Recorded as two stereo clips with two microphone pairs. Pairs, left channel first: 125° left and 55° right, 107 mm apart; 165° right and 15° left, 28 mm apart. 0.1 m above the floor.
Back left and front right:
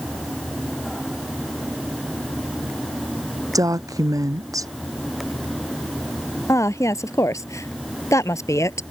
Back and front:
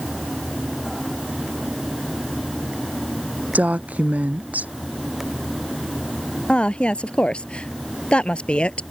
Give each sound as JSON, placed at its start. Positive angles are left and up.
{"t": 3.5, "sound": "a woman speaking", "azimuth_deg": 0}
{"t": 6.5, "sound": "a woman speaking", "azimuth_deg": 175}